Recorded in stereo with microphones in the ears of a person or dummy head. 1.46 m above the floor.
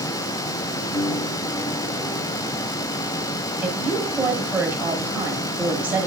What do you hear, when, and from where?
0.9 s a piano: 15° left (ahead or behind), 9.5 m
3.6 s a woman speaking: 10° right (ahead or behind), 6.5 m